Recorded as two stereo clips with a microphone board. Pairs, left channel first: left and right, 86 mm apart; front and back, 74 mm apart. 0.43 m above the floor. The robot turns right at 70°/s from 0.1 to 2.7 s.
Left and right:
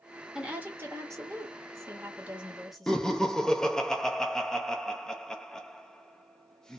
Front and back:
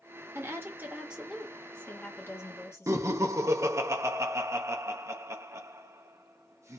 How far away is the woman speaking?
About 1.3 m.